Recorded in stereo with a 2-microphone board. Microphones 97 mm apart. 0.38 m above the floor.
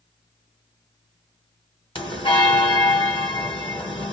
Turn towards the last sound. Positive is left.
turn(degrees=65)  # may be behind; listen again after turning